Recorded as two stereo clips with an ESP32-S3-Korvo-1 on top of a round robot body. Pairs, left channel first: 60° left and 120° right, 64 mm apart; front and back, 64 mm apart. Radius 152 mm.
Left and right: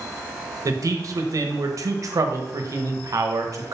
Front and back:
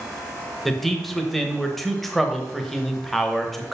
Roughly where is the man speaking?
Right.